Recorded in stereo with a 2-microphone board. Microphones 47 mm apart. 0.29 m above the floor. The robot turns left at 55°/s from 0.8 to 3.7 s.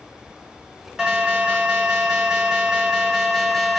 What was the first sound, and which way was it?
An alarm, 15° right (ahead or behind).